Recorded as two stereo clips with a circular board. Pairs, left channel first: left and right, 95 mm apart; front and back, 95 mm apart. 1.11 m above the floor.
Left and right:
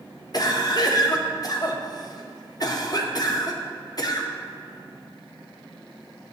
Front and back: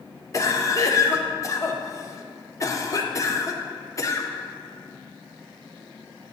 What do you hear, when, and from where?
0.3 s a cough: 50° left, 0.7 m